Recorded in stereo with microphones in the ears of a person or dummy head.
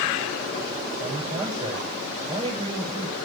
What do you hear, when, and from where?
1.0 s a man speaking: 25° right (ahead or behind), 6 m